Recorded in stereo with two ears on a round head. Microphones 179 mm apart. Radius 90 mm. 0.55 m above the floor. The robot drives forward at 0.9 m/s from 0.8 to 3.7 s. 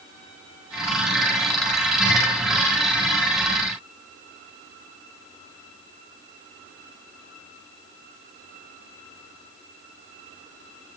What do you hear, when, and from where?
Only background noise.